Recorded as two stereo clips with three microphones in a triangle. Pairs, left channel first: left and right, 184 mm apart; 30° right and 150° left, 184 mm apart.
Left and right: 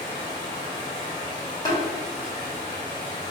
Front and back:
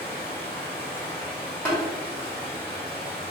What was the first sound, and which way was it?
Running water, 25° left.